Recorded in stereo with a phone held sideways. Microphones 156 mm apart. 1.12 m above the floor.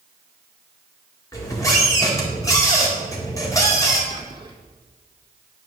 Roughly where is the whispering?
Right.